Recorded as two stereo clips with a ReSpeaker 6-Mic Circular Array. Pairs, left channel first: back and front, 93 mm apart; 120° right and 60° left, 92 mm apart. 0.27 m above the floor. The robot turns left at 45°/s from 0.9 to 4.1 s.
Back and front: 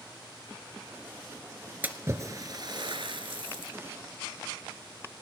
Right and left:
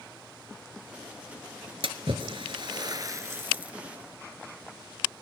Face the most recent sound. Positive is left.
turn(degrees=-35)